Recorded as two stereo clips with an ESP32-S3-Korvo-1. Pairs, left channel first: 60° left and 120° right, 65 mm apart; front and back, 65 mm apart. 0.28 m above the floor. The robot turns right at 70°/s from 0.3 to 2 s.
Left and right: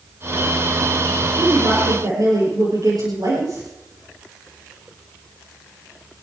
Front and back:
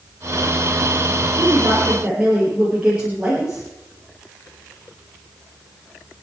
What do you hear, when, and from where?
1.4 s a woman speaking: 150° right, 6.5 m; by 3.6 s 105° right, 6.5 m